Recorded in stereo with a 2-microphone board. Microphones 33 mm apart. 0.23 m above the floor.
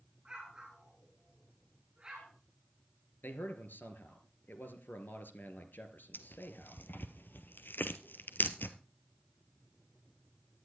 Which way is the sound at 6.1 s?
80° left.